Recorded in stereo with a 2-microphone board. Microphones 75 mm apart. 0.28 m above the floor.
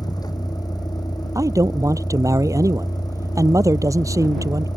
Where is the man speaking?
45° right (ahead or behind).